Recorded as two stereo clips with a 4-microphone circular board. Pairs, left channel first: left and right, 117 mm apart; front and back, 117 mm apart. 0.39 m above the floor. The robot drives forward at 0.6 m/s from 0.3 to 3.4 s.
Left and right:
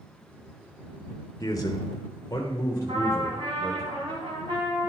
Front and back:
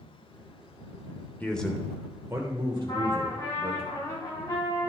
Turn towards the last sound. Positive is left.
turn(degrees=-55)